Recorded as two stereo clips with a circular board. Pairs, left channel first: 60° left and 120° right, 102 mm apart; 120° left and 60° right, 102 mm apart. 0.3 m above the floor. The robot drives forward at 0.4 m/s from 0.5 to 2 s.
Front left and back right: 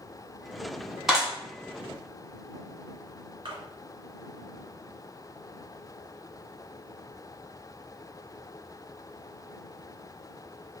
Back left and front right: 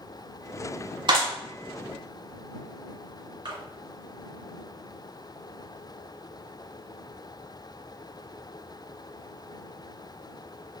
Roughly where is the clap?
Ahead right.